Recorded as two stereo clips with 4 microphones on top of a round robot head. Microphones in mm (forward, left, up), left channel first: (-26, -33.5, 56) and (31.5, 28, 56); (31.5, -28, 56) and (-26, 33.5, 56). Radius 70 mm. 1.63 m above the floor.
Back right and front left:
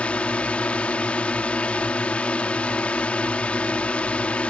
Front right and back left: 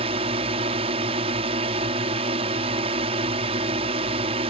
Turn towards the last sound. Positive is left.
turn(degrees=150)